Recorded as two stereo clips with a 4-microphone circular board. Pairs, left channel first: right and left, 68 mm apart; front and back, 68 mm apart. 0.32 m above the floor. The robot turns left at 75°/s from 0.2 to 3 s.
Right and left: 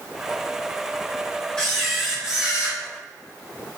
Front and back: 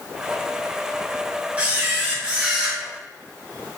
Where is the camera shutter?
150° right, 0.7 m; by 2.8 s 115° left, 0.7 m.